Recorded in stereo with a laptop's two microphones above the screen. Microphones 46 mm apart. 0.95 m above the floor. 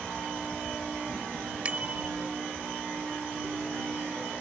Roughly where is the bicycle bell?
Right.